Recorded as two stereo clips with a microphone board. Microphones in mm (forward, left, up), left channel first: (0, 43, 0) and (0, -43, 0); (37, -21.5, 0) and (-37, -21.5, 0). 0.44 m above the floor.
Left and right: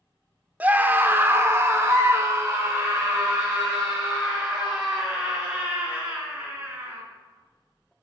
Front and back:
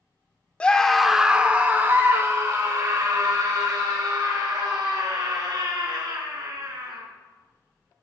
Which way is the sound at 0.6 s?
50° right.